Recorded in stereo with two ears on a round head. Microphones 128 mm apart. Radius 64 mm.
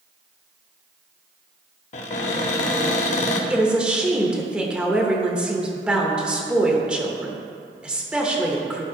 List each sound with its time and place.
1.9 s a cupboard door: 50° left (ahead or behind), 0.8 m
3.5 s a woman speaking: 5° right (ahead or behind), 0.9 m